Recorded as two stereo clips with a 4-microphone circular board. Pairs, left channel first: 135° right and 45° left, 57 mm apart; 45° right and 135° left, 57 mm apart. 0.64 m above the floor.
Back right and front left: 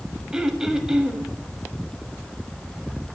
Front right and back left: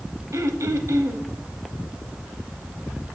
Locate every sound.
0.3 s throat clearing: 125° left, 0.9 m